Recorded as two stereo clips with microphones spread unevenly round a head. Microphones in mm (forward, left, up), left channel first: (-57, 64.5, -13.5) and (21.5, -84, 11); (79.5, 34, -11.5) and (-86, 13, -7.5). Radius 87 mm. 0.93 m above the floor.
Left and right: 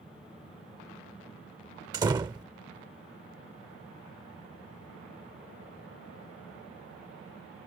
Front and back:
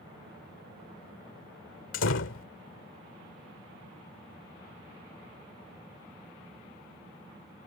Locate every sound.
1.9 s a door slam: 5° left